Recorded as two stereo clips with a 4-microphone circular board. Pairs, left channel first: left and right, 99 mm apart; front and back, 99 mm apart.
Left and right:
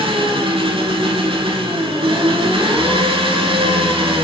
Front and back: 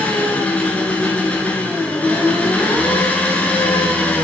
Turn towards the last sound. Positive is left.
turn(degrees=-75)